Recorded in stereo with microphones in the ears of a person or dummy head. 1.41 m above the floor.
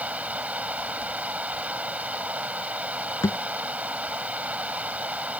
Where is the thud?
20° left (ahead or behind).